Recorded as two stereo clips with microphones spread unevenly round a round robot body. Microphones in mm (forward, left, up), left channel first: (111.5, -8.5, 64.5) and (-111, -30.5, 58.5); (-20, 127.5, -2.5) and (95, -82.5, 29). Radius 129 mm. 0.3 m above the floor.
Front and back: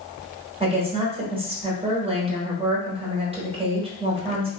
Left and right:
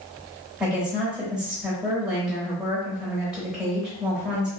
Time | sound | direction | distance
0.6 | a woman speaking | 160° right | 1.2 m